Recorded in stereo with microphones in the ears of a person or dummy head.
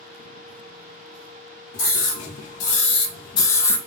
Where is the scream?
50° left (ahead or behind), 1.4 m; by 3.8 s 10° left (ahead or behind), 0.6 m.